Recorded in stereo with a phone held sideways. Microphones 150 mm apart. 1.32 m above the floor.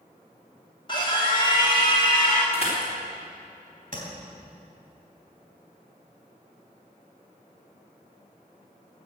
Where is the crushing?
40° left (ahead or behind), 4 m.